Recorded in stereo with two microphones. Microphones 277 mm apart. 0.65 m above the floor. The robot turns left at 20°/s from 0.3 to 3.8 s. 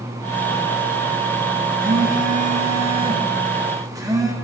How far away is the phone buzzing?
About 1.0 m.